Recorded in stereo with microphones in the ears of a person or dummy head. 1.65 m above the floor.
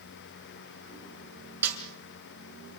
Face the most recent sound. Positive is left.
turn(degrees=-10)  # may be behind; listen again after turning